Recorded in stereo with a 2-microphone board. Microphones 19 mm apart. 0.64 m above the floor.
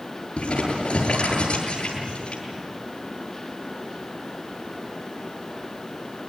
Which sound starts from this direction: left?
Crumpling, at 0.4 s.